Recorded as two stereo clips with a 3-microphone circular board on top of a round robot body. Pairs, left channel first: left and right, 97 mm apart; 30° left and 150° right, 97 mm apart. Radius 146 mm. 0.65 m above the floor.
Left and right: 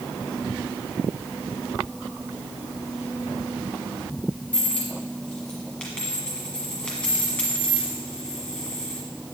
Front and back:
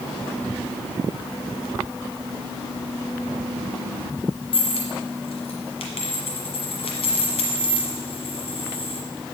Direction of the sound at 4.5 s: 10° left.